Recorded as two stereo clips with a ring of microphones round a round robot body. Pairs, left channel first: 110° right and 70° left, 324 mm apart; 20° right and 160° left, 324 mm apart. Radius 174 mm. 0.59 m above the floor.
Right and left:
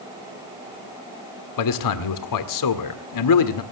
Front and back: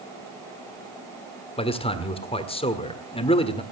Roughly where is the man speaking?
Right.